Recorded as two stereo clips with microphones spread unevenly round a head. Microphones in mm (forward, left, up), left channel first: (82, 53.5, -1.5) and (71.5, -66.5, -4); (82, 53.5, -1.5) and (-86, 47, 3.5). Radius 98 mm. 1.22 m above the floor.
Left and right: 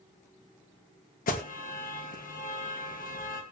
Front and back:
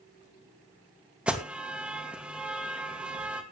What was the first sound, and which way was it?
An alarm, 100° left.